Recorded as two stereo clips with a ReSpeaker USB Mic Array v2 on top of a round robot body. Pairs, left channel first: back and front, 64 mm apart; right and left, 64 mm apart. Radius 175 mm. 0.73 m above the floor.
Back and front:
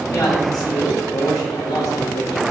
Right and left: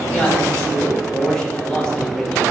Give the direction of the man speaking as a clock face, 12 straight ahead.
6 o'clock.